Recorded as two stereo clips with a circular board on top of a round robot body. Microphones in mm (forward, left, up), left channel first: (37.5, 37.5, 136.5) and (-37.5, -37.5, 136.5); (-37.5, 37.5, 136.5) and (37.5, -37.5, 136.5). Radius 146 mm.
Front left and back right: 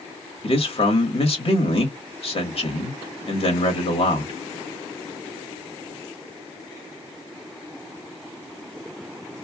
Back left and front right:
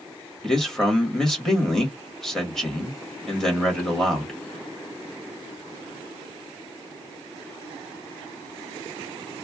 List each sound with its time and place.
0.4 s a man speaking: 50° left, 1.8 m